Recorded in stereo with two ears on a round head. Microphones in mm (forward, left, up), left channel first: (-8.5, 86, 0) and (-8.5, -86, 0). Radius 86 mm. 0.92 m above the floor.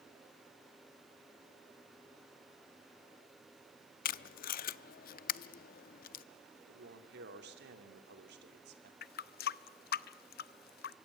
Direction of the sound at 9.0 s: 50° left (ahead or behind).